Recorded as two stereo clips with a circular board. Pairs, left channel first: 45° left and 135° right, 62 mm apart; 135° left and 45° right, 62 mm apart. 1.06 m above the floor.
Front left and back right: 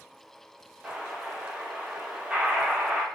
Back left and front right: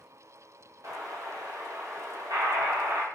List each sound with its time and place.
0.8 s an explosion: 60° right, 1.0 m